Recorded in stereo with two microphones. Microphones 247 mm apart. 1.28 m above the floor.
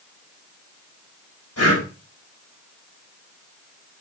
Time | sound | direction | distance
1.6 | breathing | 85° left | 5 m